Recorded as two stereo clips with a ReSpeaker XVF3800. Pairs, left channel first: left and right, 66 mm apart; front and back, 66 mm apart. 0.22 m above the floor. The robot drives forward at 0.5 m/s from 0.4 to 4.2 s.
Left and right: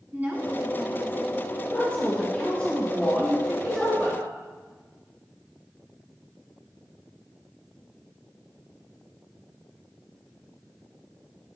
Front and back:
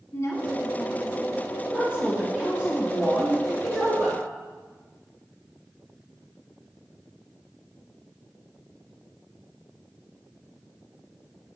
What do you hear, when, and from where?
0.1 s a woman speaking: 30° right, 1.6 m; by 1.4 s 45° right, 1.3 m
1.7 s a woman speaking: 125° left, 1.5 m; by 4.2 s 160° left, 2 m